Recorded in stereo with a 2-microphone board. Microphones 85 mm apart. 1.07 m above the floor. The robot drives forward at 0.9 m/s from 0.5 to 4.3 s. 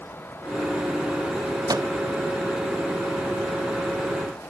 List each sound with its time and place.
1.7 s a microwave: 50° right (ahead or behind), 0.7 m; by 1.9 s 60° right (ahead or behind), 0.6 m